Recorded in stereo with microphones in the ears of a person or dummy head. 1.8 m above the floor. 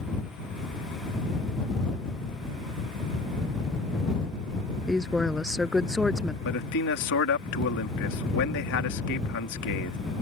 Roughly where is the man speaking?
Left.